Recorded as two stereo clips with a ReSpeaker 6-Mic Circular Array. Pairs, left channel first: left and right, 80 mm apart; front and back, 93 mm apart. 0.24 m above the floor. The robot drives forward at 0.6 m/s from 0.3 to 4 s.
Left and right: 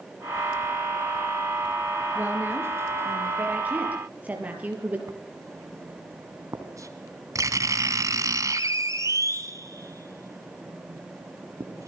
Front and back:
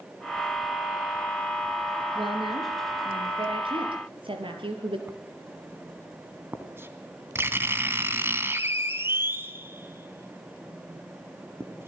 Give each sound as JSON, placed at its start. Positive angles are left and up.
{"t": 2.1, "sound": "a woman speaking", "azimuth_deg": -155, "distance_m": 4.5}
{"t": 5.1, "sound": "writing", "azimuth_deg": -120, "distance_m": 2.5}